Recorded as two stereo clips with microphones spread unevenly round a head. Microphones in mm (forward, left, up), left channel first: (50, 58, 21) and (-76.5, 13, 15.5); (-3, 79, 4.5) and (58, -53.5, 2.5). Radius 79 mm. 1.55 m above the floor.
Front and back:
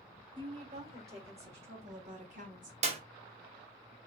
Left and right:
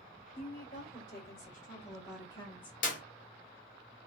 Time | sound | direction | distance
0.3 | a woman speaking | 150° left | 2 m
2.8 | a clap | 160° left | 0.8 m